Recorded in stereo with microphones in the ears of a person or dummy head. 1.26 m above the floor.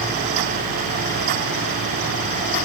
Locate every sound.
Only background noise.